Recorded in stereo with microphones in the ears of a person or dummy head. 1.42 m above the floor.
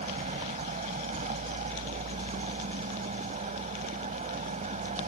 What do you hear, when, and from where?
0.0 s a vehicle: 35° right (ahead or behind)